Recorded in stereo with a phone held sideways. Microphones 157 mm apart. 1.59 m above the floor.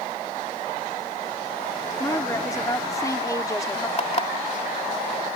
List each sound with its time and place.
2.0 s a woman speaking: 20° left (ahead or behind)
4.0 s an alarm clock: 45° left (ahead or behind)